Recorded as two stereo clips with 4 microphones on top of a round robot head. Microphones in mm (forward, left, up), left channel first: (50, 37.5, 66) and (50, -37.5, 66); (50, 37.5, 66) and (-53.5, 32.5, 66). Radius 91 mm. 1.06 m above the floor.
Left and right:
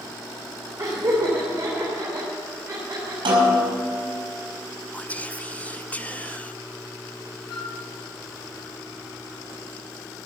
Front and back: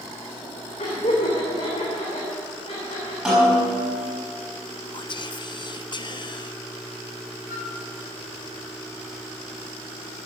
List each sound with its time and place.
0.8 s laughter: 45° right, 3.5 m
3.2 s a snare drum: 90° right, 6.5 m
4.9 s whispering: 25° left, 1.0 m
7.5 s a flute: 110° left, 2.5 m